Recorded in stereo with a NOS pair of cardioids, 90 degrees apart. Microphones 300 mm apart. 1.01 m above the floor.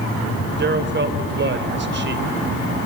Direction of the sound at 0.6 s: 35° right.